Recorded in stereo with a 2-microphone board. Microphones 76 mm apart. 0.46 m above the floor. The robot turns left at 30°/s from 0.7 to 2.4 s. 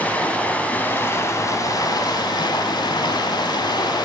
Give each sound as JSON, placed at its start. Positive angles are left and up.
{"t": 0.0, "sound": "running water", "azimuth_deg": 160, "distance_m": 1.0}